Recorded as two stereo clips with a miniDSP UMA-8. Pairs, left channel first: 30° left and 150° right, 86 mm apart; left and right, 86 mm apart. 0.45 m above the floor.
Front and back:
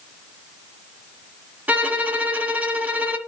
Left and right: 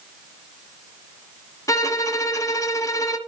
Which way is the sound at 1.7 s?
140° left.